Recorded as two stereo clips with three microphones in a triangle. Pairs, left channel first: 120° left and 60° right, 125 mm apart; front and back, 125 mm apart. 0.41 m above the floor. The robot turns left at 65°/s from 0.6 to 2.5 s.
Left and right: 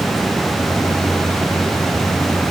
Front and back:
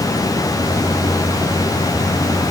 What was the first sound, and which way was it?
Only background noise.